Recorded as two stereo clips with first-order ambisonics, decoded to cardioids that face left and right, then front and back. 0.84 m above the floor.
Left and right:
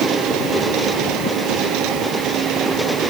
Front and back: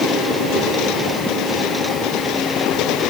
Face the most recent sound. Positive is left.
No sound to turn to.